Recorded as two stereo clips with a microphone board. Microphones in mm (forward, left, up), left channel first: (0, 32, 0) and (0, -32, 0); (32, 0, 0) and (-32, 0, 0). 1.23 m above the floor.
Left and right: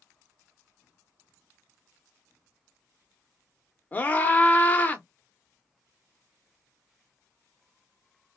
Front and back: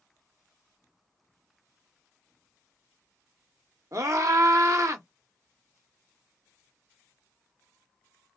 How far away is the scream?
About 0.9 m.